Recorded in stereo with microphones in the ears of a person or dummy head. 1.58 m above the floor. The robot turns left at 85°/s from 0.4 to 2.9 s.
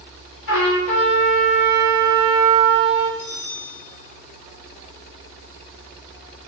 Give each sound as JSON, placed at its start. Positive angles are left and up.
{"t": 0.5, "sound": "a trumpet", "azimuth_deg": 75, "distance_m": 0.8}
{"t": 3.2, "sound": "a bell", "side_deg": 35, "distance_m": 0.9}